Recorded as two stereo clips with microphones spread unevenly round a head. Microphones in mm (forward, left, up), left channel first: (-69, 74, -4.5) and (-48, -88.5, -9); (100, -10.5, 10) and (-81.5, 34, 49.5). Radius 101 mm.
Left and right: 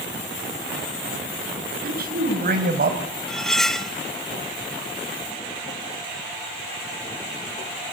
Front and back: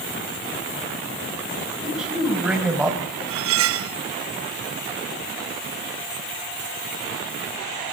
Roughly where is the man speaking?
Right.